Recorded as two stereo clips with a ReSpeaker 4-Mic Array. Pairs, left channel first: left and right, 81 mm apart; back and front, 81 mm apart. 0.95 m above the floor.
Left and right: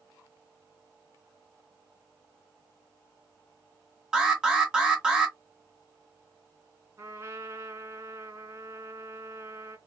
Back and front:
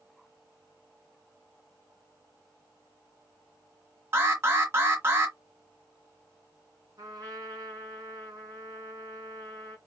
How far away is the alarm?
About 1.4 m.